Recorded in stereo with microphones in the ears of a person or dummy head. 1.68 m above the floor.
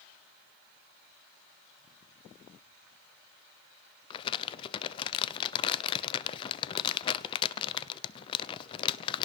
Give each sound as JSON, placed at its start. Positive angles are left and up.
{"t": 4.1, "sound": "crumpling", "side_deg": 35, "distance_m": 0.8}